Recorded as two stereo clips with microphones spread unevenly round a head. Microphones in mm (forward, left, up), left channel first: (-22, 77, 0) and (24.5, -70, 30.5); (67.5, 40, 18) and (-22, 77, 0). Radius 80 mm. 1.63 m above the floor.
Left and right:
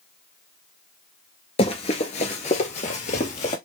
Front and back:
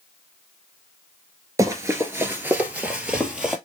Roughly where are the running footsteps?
Behind left.